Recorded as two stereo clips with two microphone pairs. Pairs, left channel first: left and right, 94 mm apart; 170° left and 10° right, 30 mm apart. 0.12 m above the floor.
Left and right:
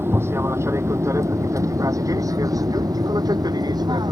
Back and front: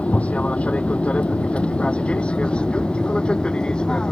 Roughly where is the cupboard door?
I don't hear a cupboard door.